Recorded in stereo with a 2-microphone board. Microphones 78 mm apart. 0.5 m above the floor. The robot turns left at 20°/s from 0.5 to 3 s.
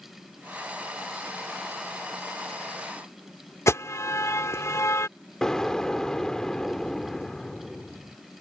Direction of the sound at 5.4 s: 10° left (ahead or behind).